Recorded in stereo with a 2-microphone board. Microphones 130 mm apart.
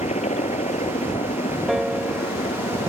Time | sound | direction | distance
0.0 | a helicopter | 70° left (ahead or behind) | ?
1.7 | a piano | centre (ahead or behind) | ?